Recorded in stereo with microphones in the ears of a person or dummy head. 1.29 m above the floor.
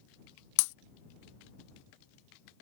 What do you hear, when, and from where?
0.6 s breaking glass: 60° left (ahead or behind)